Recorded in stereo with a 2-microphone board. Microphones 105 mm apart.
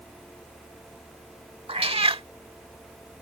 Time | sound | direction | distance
1.7 | a cat meowing | 65° right (ahead or behind) | ?